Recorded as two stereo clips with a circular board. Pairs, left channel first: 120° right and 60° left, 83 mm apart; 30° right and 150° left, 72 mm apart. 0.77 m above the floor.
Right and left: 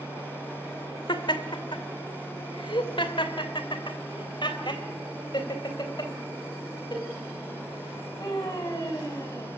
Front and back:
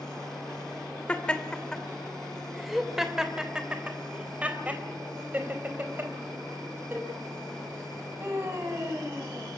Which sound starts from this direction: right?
Laughter, at 1.1 s.